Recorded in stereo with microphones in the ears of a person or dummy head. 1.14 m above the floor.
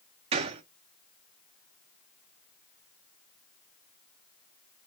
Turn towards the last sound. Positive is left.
turn(degrees=-25)  # may be behind; listen again after turning